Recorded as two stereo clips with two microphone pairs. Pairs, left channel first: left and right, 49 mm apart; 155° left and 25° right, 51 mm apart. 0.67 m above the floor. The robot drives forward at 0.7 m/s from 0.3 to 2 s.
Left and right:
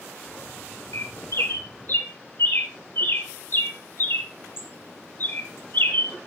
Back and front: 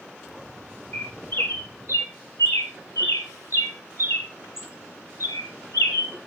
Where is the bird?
105° left, 1.3 m; by 6.1 s 130° left, 1.7 m.